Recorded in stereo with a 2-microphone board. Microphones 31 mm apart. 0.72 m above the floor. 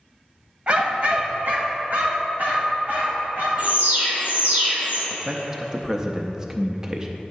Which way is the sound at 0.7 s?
40° right (ahead or behind).